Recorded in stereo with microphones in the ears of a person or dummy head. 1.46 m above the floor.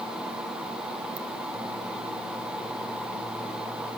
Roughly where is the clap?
No clap in this recording.